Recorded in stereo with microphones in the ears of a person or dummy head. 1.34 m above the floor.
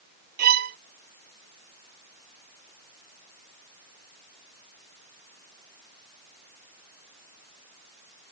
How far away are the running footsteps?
No running footsteps in this recording.